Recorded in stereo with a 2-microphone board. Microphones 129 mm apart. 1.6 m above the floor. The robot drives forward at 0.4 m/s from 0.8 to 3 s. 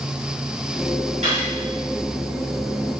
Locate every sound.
1.2 s cutlery clinking: 65° right (ahead or behind), 1.9 m